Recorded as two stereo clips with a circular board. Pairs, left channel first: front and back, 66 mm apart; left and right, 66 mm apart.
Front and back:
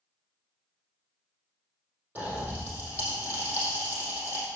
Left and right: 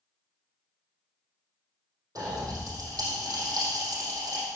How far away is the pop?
About 4 m.